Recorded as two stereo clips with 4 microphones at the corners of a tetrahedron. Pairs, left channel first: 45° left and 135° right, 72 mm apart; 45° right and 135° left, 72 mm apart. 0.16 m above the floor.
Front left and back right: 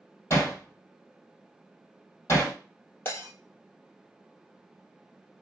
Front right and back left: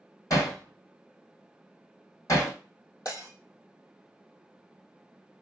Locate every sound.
0.3 s hammering: 5° right, 2 m
3.0 s breaking glass: 15° right, 2.5 m